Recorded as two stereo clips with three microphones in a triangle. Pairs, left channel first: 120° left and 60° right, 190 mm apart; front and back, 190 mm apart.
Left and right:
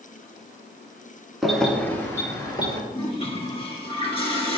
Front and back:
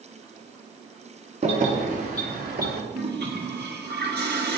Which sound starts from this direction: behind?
A toilet flushing, at 2.9 s.